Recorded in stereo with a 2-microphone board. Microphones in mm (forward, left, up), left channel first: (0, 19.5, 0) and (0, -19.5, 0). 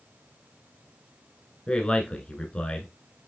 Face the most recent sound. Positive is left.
turn(degrees=25)  # may be behind; listen again after turning